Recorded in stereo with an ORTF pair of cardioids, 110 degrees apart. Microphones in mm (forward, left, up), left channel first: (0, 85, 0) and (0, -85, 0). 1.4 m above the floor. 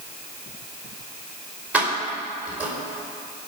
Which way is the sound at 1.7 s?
10° right.